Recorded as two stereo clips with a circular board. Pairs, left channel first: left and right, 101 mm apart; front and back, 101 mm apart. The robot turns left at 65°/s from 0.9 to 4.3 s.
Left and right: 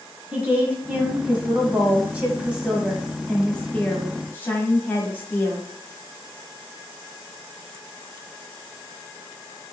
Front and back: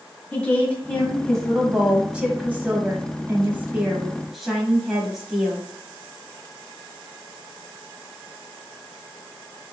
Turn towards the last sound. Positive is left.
turn(degrees=95)